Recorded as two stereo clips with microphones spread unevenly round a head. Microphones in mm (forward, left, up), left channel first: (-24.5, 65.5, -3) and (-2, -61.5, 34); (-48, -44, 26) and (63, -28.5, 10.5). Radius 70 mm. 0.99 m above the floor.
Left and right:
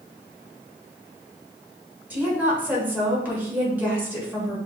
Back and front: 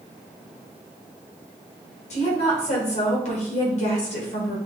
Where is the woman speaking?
165° right, 1.6 m.